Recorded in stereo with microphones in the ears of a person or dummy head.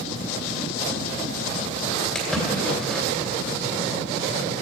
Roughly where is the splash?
Centre.